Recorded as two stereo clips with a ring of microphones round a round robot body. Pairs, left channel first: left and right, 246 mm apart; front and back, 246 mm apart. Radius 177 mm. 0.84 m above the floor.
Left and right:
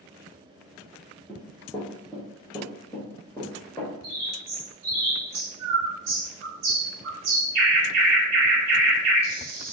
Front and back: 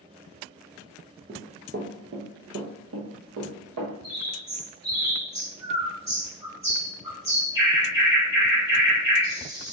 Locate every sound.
1.3 s running footsteps: 160° left, 0.8 m; by 3.9 s 175° left, 2 m
4.0 s a bird: 100° right, 2 m